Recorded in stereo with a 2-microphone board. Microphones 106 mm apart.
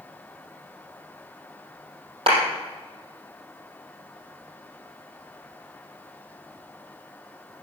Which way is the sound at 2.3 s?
60° right (ahead or behind).